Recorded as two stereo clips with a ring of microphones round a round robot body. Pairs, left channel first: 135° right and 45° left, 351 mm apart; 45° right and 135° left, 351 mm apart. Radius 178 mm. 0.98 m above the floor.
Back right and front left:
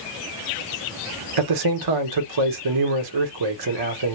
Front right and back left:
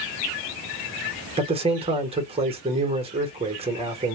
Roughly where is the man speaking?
Ahead left.